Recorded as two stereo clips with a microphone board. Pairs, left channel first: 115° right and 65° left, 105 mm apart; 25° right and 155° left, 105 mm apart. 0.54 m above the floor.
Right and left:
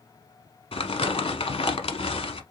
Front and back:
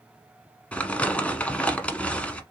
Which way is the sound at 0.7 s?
100° right.